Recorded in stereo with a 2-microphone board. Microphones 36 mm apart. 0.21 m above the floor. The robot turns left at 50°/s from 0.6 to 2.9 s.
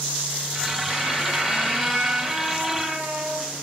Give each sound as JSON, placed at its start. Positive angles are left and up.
{"t": 0.9, "sound": "a squeak", "azimuth_deg": 70, "distance_m": 1.6}